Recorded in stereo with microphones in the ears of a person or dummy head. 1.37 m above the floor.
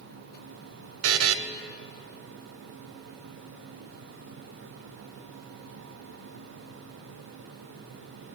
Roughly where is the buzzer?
Right.